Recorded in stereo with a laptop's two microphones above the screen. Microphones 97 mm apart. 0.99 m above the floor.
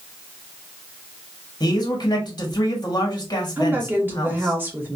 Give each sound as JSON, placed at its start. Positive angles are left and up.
{"t": 1.6, "sound": "a man speaking", "side_deg": 45, "distance_m": 1.2}
{"t": 3.6, "sound": "a woman speaking", "side_deg": -20, "distance_m": 1.1}